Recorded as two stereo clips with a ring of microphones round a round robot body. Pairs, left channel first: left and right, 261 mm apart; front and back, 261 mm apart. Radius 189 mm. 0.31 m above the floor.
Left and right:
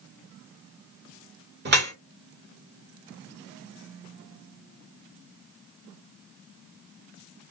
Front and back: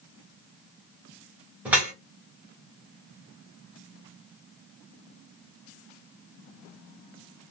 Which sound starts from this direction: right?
Dripping, at 1.6 s.